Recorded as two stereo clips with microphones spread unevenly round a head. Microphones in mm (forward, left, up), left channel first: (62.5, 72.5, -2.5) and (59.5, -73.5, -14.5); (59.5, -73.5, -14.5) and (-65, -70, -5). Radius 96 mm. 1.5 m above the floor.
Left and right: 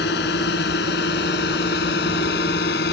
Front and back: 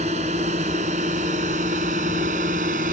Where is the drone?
120° left; by 2.9 s 130° left.